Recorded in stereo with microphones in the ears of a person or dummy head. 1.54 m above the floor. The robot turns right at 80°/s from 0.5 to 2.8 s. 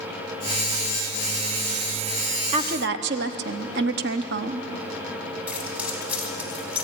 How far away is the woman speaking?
About 1.0 m.